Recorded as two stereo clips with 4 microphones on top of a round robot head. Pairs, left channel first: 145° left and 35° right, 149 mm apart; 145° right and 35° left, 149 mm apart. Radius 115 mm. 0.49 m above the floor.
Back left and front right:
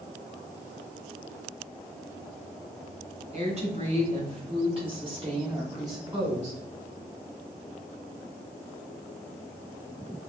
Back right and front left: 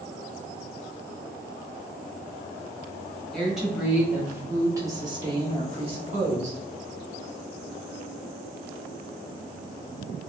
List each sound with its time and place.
3.3 s a woman speaking: 55° right, 1.7 m; by 6.6 s 25° left, 1.8 m